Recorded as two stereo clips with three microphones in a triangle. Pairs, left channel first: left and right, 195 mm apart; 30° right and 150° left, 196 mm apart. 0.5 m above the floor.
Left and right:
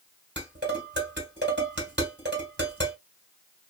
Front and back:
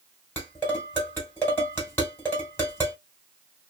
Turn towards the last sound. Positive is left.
turn(degrees=-110)